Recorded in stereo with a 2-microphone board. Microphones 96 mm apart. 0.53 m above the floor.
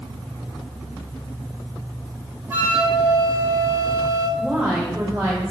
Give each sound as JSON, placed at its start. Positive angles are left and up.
{"t": 2.5, "sound": "a flute", "side_deg": -25, "distance_m": 0.8}
{"t": 4.4, "sound": "a woman speaking", "side_deg": -35, "distance_m": 1.5}